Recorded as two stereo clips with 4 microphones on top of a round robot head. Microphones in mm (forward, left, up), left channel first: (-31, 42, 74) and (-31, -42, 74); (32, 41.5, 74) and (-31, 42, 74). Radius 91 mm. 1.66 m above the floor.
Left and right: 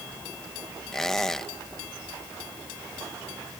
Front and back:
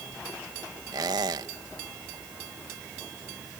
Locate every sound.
0.9 s a squeak: 175° left